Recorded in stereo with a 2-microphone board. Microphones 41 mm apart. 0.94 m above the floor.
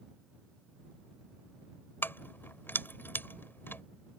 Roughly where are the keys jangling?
Left.